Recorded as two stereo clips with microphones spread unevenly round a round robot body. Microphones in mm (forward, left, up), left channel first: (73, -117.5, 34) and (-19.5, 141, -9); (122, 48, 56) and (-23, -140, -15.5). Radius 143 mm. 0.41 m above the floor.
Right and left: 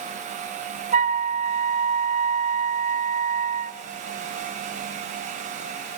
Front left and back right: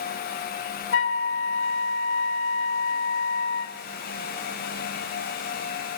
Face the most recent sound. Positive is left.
turn(degrees=85)